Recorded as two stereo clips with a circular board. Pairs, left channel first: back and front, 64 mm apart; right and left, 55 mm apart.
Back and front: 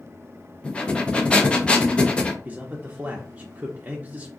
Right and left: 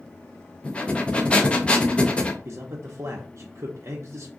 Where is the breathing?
130° right, 0.6 m.